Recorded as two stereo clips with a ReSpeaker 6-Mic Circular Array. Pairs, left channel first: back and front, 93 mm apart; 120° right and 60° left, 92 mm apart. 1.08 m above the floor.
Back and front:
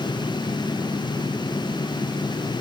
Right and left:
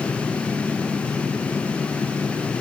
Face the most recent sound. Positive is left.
No sound to turn to.